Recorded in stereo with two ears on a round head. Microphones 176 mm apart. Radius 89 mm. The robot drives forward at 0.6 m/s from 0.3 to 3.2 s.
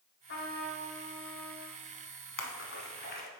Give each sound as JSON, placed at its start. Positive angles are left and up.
{"t": 0.3, "sound": "a trumpet", "side_deg": 65, "distance_m": 1.8}
{"t": 2.4, "sound": "a splash", "side_deg": 70, "distance_m": 0.9}